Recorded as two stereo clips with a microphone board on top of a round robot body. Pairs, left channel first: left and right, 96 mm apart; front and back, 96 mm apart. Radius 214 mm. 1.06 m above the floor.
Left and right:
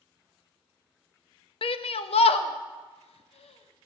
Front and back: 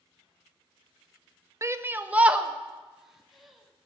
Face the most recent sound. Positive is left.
turn(degrees=90)